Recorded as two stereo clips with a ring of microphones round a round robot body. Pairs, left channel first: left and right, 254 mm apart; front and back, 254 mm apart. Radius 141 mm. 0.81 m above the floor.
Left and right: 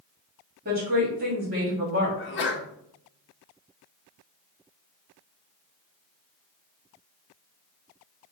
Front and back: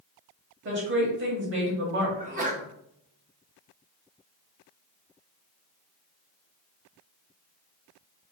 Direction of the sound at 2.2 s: 125° left.